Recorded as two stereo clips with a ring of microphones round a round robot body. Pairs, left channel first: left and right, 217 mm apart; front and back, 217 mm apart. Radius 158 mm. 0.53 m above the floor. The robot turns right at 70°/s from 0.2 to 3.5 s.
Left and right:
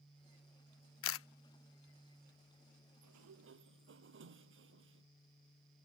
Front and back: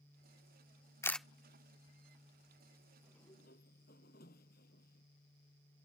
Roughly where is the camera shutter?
Left.